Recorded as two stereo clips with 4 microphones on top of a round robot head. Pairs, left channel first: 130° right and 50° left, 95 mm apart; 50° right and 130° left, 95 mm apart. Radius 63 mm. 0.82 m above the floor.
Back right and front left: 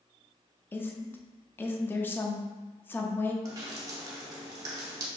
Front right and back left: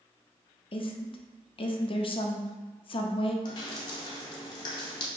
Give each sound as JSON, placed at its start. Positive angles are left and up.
{"t": 0.7, "sound": "a woman speaking", "azimuth_deg": -65, "distance_m": 0.7}
{"t": 3.5, "sound": "dripping", "azimuth_deg": -5, "distance_m": 0.8}